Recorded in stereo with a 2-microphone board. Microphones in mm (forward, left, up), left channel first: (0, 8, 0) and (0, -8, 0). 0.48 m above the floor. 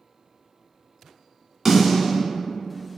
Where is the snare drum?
20° right (ahead or behind), 1.7 m.